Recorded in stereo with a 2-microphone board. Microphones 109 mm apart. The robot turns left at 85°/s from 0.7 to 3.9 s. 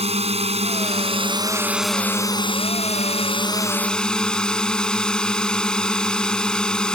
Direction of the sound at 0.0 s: 80° right.